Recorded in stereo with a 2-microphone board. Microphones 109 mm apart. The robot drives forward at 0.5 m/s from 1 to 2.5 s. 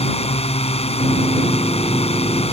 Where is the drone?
65° left (ahead or behind).